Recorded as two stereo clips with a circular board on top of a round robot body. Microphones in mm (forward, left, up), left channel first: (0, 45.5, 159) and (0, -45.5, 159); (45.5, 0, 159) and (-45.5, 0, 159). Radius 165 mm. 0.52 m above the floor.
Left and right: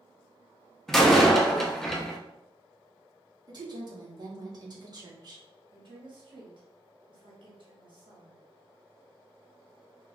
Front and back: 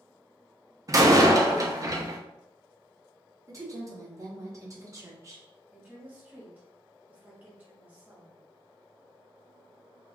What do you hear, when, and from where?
0.9 s a door slam: 175° left, 0.9 m
3.5 s a woman speaking: 130° right, 1.4 m
5.7 s a woman speaking: 110° right, 1.5 m